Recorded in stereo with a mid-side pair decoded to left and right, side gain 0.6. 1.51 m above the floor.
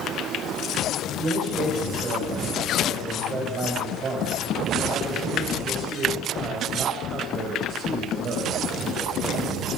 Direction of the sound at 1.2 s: 45° right.